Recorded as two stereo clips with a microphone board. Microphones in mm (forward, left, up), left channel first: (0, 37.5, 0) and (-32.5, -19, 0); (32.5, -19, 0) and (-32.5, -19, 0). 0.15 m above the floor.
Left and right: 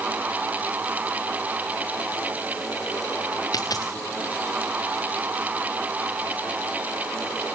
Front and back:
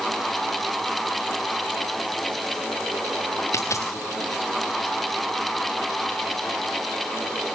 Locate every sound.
3.5 s a dropped coin: 40° left, 2 m